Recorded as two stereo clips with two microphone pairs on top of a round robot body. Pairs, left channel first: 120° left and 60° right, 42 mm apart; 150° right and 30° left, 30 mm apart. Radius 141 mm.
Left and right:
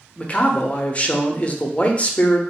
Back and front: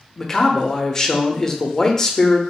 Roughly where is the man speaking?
Behind left.